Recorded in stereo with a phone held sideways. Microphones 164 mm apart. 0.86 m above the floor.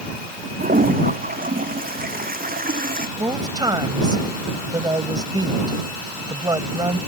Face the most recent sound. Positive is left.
turn(degrees=-25)  # may be behind; listen again after turning